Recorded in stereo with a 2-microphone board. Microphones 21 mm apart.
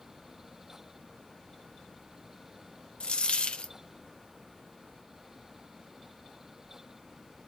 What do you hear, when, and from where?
3.0 s a dropped coin: 60° left (ahead or behind), 0.5 m